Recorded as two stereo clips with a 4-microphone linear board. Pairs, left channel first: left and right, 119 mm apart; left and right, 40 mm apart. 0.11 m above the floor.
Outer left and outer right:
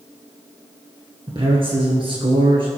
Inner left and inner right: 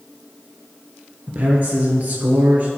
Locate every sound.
1.3 s a man speaking: 45° right (ahead or behind), 2 m